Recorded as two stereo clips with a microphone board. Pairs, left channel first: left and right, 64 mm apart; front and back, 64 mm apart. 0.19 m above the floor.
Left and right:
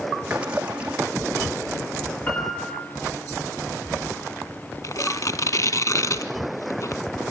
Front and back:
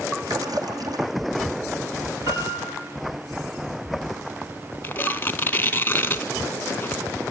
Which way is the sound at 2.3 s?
150° left.